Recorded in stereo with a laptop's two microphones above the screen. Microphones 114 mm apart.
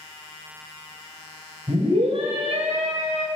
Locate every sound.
1.7 s a scream: 75° right (ahead or behind), 3.5 m; by 3.3 s 80° right, 3 m